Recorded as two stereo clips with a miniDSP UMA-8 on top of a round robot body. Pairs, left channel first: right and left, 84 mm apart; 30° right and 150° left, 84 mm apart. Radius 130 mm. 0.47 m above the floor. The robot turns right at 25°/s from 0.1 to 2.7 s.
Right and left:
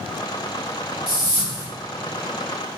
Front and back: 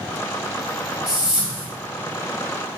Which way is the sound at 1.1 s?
65° left.